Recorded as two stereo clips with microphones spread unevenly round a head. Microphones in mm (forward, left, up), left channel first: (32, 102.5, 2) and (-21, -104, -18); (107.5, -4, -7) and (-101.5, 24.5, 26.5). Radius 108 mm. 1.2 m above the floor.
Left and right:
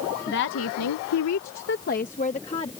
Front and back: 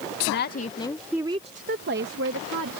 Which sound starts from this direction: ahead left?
A woman speaking, at 0.3 s.